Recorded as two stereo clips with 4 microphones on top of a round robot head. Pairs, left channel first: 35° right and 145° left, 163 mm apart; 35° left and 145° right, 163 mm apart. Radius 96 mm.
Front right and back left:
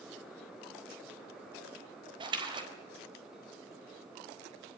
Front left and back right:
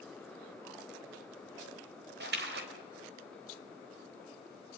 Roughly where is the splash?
Behind right.